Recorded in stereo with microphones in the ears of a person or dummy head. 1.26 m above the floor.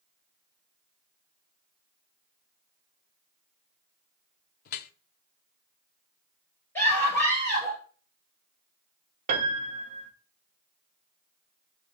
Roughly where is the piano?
Right.